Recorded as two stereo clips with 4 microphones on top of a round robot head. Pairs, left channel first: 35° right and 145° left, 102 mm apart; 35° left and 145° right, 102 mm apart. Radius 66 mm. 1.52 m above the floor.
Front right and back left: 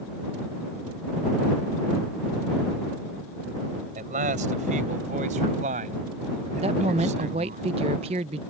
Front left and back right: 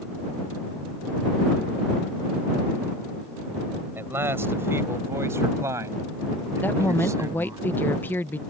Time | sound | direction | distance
4.0 | a man speaking | 145° left | ?
6.6 | a woman speaking | 110° left | ?